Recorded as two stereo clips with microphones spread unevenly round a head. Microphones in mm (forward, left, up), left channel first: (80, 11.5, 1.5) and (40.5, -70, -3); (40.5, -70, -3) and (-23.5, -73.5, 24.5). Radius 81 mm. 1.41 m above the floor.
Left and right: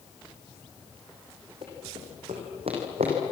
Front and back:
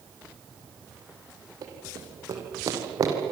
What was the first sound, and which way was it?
Running footsteps, 175° right.